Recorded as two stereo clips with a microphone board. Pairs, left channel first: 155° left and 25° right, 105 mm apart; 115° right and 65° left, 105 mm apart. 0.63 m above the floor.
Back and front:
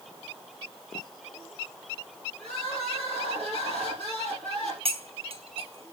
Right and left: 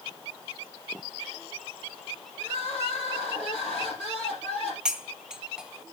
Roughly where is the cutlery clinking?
Ahead.